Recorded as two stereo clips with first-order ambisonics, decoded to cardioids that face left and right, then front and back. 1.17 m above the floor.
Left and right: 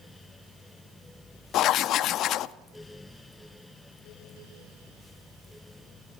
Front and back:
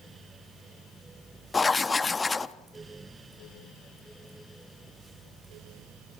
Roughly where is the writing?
Left.